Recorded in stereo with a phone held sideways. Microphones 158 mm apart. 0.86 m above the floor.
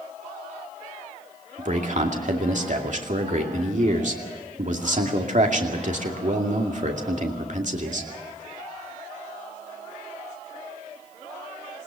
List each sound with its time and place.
1.6 s a man speaking: 55° right (ahead or behind), 2.5 m